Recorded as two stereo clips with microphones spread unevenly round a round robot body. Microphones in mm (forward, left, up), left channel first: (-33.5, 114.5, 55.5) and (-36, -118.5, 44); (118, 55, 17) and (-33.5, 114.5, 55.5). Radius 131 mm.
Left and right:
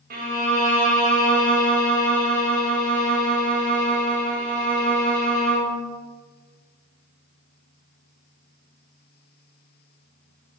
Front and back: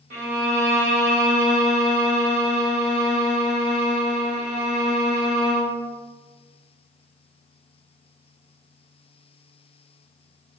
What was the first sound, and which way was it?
A violin, 140° right.